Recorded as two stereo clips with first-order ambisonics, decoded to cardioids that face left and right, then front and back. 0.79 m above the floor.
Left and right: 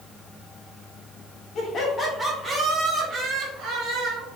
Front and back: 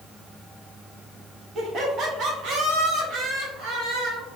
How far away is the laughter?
About 1.1 m.